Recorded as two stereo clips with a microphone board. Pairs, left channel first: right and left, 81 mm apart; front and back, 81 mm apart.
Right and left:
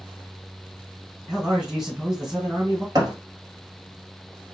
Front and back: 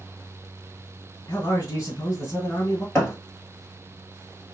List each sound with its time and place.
1.3 s a man speaking: 10° left, 1.8 m
3.0 s a thud: 60° left, 1.2 m